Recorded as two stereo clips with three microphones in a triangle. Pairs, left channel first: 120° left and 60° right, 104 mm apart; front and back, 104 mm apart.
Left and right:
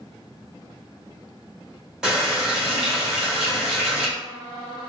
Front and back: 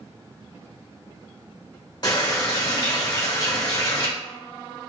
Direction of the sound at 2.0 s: 20° left.